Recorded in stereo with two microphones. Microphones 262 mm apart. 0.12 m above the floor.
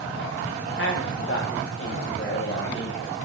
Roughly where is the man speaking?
Left.